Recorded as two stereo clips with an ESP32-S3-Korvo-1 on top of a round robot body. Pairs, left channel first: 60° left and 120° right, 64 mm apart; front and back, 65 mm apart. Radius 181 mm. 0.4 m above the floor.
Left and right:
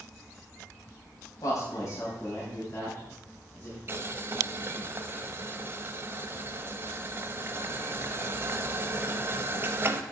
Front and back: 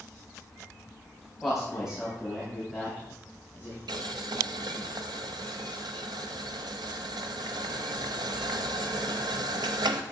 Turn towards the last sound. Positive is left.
turn(degrees=-175)